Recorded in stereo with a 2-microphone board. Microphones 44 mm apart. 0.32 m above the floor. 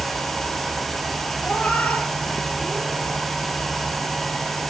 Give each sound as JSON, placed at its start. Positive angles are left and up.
{"t": 1.4, "sound": "a cat meowing", "side_deg": 40, "distance_m": 2.0}